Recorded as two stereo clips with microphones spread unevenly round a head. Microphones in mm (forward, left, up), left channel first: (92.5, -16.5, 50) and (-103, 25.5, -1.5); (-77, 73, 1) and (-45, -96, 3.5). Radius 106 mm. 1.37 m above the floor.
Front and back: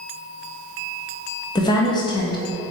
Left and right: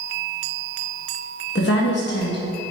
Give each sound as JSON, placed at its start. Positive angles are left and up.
{"t": 1.6, "sound": "a woman speaking", "azimuth_deg": 55, "distance_m": 1.3}